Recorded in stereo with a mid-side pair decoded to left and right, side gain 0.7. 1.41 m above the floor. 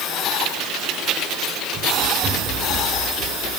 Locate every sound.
1.7 s running footsteps: 35° right, 6.5 m; by 3.5 s 45° right, 8.5 m